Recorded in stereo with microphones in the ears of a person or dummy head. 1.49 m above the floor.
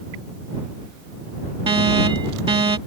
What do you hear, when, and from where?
1.7 s an alarm: 25° right (ahead or behind)